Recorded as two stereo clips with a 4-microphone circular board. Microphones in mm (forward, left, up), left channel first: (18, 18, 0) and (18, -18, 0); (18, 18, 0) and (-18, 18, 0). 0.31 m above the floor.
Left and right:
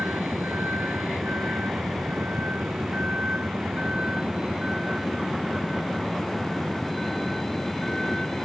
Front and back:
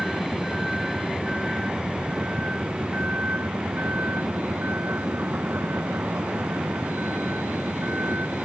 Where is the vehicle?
90° right; by 8.4 s 170° left.